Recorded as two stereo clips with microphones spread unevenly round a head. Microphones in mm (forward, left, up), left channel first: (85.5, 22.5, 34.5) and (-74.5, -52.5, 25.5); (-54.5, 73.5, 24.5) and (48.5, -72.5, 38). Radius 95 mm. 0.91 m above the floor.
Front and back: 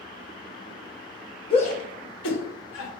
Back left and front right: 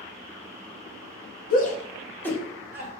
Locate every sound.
1.5 s a shout: 90° left, 1.1 m; by 2.9 s 25° left, 1.7 m